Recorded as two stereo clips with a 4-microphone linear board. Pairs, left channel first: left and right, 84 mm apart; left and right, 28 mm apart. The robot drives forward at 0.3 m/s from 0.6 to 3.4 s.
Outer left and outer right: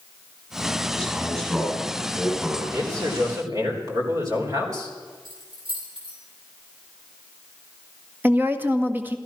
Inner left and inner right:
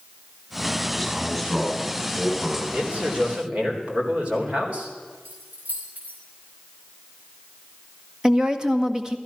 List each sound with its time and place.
0.9 s a man speaking: 10° right (ahead or behind), 8 m
2.7 s a man speaking: 45° right (ahead or behind), 3.5 m
5.2 s keys jangling: 85° right, 6 m
8.2 s a woman speaking: 25° right (ahead or behind), 1.5 m